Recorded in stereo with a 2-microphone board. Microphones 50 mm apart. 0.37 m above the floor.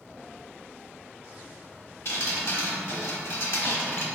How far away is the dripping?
About 0.9 m.